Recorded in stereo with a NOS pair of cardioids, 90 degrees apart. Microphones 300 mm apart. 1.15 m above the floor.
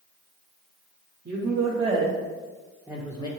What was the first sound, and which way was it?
A woman speaking, 55° right.